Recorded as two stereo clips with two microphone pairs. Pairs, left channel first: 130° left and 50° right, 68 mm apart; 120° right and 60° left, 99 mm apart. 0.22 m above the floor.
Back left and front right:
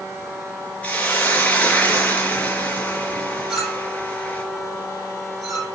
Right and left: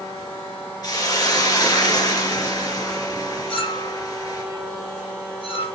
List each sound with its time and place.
0.8 s a hiss: 160° right, 4 m
3.5 s a clink: 135° right, 5.5 m